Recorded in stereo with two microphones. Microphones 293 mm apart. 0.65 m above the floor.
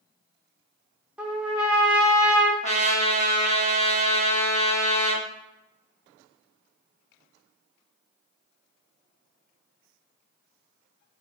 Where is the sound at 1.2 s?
5° right (ahead or behind), 0.6 m.